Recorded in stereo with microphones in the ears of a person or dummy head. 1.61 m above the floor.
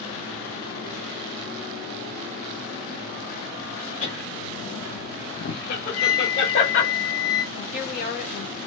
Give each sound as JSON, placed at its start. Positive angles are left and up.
{"t": 4.0, "sound": "laughter", "side_deg": 35, "distance_m": 0.5}
{"t": 5.9, "sound": "a flute", "side_deg": 70, "distance_m": 1.1}
{"t": 7.5, "sound": "a woman speaking", "side_deg": 50, "distance_m": 1.0}